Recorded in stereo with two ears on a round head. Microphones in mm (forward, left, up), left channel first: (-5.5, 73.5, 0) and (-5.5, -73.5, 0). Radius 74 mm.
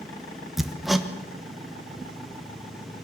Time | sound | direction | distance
0.6 | hammering | centre (ahead or behind) | 1.2 m